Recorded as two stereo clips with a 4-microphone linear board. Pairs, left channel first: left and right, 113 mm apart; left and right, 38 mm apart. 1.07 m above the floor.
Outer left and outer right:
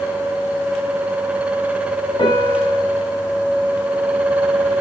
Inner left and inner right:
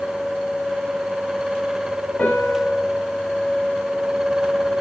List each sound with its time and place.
2.2 s a piano: 45° left (ahead or behind), 10 m